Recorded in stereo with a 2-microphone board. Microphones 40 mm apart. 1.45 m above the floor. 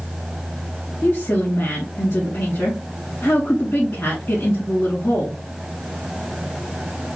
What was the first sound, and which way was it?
A woman speaking, 65° left (ahead or behind).